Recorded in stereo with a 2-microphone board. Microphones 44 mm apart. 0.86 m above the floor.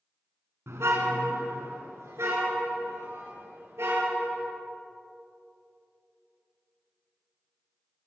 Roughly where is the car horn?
Right.